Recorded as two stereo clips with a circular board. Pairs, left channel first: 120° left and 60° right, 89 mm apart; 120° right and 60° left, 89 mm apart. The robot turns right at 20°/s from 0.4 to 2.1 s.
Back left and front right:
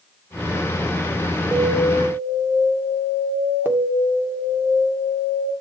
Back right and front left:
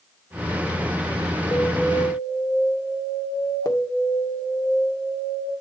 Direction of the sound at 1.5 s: 125° right.